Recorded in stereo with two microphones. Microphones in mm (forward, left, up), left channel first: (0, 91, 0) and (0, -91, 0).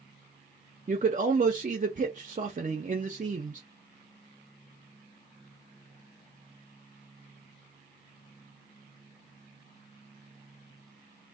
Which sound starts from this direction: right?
A man speaking, at 0.9 s.